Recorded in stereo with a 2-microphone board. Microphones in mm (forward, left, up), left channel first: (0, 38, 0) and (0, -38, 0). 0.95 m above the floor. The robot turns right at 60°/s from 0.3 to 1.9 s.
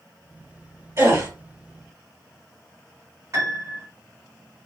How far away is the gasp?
About 1.9 m.